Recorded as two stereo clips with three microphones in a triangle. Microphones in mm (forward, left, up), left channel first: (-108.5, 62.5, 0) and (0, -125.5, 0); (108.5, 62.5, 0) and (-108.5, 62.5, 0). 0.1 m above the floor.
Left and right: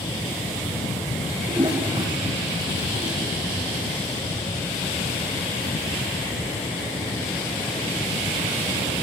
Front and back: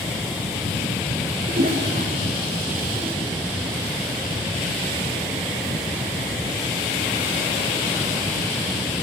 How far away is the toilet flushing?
About 4.5 m.